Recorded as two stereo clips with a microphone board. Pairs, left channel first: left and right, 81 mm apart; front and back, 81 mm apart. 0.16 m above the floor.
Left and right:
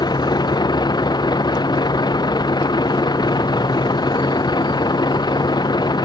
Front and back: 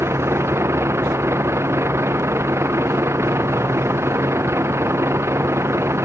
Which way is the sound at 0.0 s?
125° left.